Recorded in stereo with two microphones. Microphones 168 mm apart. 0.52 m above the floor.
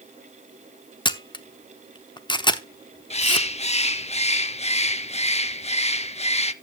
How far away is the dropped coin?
No dropped coin in this recording.